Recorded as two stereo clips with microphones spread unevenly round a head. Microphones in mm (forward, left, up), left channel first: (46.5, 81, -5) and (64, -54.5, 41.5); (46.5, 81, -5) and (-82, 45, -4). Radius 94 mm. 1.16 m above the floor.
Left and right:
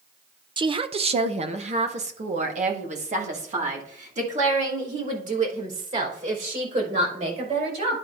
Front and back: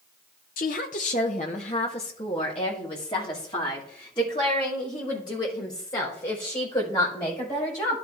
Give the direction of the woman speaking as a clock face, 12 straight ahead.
1 o'clock.